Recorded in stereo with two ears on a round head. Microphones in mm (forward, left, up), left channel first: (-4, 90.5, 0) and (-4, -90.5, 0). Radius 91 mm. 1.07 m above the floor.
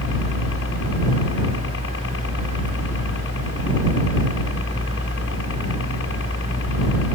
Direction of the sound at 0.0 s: 70° left (ahead or behind).